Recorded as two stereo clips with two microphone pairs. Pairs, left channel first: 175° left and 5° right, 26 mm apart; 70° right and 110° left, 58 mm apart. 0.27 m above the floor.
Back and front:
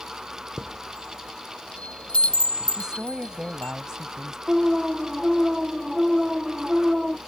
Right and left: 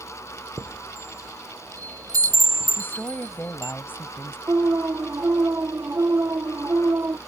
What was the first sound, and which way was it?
A chime, 140° left.